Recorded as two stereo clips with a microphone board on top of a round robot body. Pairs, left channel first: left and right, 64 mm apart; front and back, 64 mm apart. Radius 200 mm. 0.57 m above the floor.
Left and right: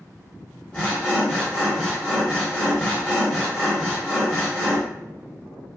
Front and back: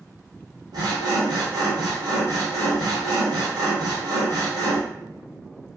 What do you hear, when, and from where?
0.7 s sawing: 165° left, 0.7 m